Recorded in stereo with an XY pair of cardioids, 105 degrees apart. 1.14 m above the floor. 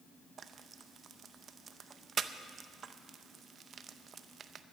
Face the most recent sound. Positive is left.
turn(degrees=-45)